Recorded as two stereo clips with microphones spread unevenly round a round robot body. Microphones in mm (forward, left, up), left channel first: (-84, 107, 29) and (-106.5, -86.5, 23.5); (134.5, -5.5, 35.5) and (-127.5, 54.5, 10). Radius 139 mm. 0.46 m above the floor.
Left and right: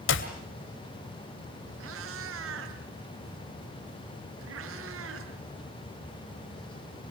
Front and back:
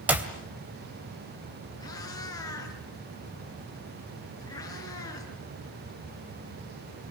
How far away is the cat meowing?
About 3 m.